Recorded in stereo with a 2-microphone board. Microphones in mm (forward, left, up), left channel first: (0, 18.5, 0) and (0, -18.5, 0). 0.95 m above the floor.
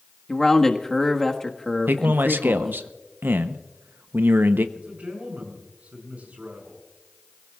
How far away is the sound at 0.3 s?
About 1.4 m.